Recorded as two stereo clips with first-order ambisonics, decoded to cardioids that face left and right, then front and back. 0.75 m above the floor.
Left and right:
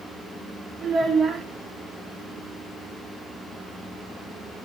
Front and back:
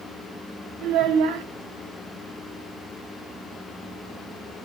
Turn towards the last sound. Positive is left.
turn(degrees=-155)